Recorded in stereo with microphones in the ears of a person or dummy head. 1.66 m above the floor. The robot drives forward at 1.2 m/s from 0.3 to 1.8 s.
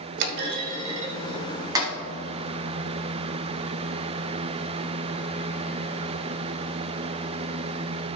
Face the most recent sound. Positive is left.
turn(degrees=-25)  # may be behind; listen again after turning